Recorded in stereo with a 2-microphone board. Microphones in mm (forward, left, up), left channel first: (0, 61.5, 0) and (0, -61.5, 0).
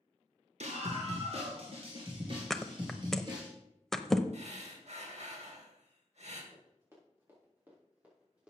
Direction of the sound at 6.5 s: 25° right (ahead or behind).